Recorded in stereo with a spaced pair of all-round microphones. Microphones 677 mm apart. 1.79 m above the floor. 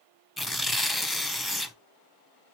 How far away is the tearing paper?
About 0.7 m.